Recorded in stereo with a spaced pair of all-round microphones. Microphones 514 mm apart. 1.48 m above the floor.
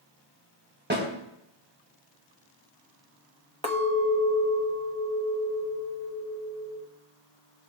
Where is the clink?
10° left (ahead or behind), 0.9 m.